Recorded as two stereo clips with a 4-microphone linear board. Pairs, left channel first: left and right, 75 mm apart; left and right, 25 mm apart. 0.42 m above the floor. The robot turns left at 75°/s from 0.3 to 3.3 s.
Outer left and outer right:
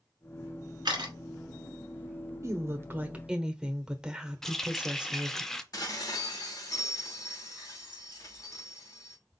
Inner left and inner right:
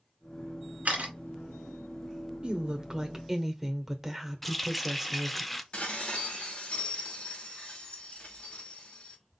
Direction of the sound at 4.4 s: 5° left (ahead or behind).